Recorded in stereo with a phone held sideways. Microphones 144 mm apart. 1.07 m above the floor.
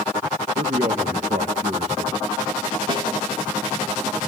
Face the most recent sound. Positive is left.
turn(degrees=-35)  # may be behind; listen again after turning